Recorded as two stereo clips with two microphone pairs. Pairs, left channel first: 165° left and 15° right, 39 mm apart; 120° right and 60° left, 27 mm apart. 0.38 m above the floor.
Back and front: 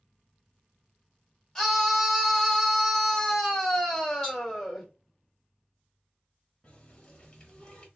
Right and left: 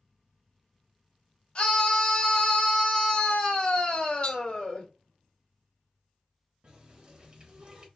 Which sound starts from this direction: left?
A running tap, at 6.6 s.